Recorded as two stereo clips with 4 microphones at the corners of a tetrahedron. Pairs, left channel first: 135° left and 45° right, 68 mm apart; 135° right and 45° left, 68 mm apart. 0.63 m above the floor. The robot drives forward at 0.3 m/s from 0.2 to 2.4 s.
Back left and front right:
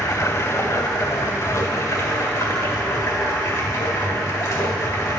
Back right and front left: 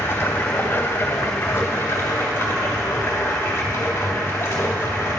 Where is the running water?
165° left, 1.1 m; by 5.2 s 170° left, 1.7 m.